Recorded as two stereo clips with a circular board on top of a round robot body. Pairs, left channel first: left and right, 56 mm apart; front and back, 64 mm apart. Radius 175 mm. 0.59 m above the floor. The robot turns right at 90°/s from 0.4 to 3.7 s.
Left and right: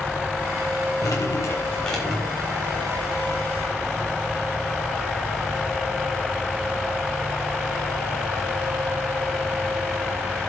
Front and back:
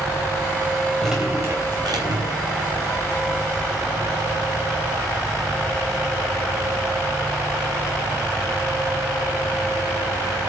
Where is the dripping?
85° left, 5.5 m; by 2.4 s 150° right, 5.5 m.